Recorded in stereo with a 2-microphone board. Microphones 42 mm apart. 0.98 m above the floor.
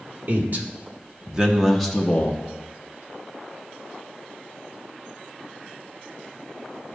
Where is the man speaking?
50° right (ahead or behind), 1.4 m; by 2.4 s 25° left (ahead or behind), 0.9 m.